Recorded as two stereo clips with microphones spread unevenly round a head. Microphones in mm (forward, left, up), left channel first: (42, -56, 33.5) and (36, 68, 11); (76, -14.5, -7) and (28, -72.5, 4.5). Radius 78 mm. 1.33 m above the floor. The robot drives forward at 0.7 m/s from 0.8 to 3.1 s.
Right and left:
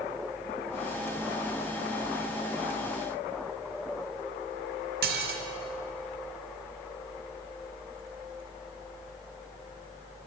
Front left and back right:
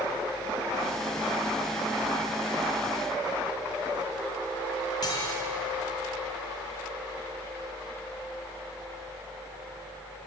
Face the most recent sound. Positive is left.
turn(degrees=115)